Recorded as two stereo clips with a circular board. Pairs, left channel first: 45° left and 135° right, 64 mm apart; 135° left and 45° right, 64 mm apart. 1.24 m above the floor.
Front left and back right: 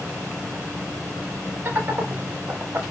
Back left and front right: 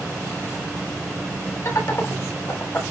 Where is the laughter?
170° left, 4.5 m; by 2.8 s 175° right, 4 m.